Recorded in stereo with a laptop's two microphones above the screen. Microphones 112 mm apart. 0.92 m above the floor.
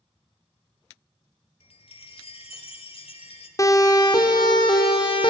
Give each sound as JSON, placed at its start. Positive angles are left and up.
{"t": 1.6, "sound": "a chime", "side_deg": 60, "distance_m": 2.0}
{"t": 3.6, "sound": "a siren", "side_deg": 35, "distance_m": 2.0}